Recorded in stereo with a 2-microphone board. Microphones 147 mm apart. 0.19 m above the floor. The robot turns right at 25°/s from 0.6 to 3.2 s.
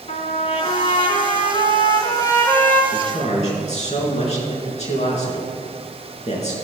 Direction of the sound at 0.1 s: 110° left.